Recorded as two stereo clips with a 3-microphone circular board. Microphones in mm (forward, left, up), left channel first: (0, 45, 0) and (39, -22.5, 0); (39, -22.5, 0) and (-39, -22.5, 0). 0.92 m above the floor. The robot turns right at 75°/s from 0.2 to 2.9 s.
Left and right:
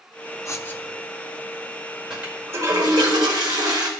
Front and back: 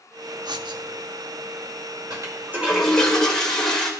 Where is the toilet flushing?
145° right, 1.9 m; by 3.9 s 85° right, 1.9 m.